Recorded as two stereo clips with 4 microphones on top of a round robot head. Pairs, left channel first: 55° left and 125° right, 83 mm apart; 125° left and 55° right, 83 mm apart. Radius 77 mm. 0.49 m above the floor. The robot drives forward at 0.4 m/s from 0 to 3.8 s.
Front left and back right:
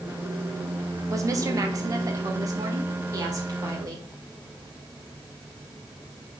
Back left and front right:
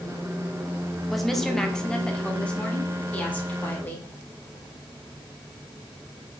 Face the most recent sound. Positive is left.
turn(degrees=-165)